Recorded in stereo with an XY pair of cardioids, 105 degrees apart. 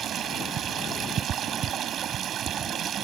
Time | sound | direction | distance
0.0 | running water | 60° right | ?